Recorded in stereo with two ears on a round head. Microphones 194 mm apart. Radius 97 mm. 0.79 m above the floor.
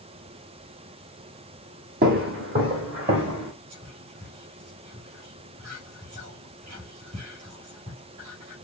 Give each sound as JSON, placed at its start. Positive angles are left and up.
{"t": 2.0, "sound": "footsteps", "side_deg": -45, "distance_m": 1.9}
{"t": 3.7, "sound": "whispering", "side_deg": -35, "distance_m": 4.0}